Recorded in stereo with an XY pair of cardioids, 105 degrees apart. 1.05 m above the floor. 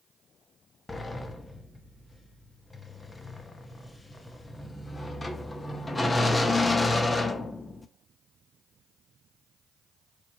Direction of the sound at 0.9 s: 20° left.